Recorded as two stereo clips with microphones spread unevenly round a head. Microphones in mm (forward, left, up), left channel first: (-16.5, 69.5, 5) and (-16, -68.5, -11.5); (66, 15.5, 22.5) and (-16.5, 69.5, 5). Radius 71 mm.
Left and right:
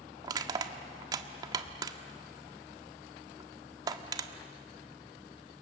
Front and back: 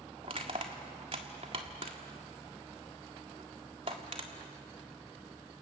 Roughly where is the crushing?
Behind right.